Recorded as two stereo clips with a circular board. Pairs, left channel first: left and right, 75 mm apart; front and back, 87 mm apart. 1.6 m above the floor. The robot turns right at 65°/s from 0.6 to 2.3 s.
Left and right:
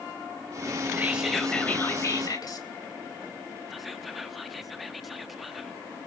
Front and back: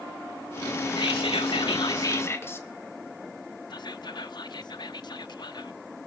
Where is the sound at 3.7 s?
Straight ahead, 0.8 m.